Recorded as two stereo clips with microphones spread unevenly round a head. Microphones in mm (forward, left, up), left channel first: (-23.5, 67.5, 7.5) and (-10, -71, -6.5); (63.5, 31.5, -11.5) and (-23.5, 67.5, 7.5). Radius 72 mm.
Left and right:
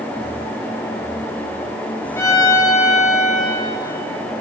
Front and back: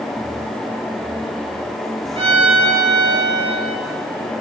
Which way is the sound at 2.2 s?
165° left.